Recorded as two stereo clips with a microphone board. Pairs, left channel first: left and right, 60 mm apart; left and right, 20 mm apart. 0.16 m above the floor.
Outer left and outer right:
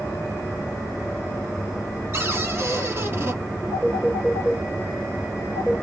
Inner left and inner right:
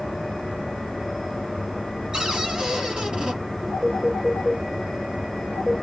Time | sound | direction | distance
2.1 | a cupboard door | 40° right (ahead or behind) | 1.6 m
3.7 | a phone ringing | 50° right (ahead or behind) | 1.6 m